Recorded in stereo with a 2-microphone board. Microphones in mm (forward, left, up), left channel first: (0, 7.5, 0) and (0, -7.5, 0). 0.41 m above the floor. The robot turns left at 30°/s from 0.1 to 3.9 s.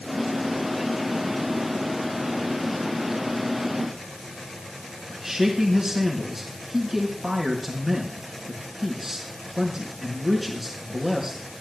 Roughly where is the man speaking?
Right.